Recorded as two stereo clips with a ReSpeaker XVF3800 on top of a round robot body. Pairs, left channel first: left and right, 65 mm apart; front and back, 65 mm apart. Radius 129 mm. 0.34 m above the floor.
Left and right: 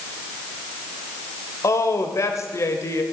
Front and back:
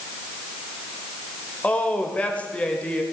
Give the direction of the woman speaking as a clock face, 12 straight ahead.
10 o'clock.